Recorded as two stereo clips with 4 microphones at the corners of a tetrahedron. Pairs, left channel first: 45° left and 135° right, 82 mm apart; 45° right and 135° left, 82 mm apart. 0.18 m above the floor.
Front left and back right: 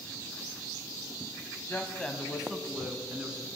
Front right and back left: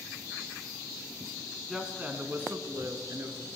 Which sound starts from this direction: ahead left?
A woman speaking, at 1.7 s.